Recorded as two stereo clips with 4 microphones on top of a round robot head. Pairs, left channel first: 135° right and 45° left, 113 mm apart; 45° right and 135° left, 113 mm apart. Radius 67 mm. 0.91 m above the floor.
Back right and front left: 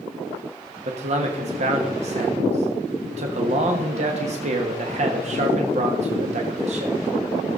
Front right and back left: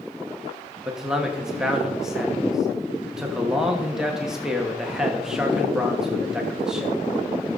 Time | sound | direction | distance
0.8 | a man speaking | 50° left | 1.3 m